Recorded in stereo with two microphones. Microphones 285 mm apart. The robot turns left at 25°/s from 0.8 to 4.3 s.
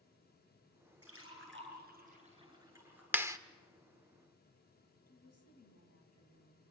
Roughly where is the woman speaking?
Left.